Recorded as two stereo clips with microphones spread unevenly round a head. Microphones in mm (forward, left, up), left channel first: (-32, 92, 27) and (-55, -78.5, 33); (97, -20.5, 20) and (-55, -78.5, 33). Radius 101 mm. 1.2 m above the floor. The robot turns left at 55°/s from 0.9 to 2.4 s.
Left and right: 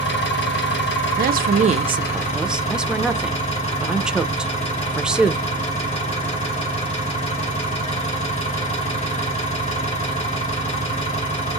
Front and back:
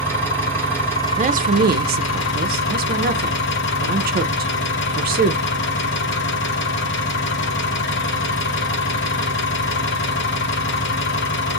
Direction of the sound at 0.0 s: 100° left.